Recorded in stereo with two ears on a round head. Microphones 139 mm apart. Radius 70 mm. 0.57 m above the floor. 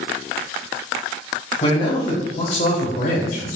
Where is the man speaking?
35° left (ahead or behind), 3 m; by 3.6 s 65° left (ahead or behind), 2.5 m.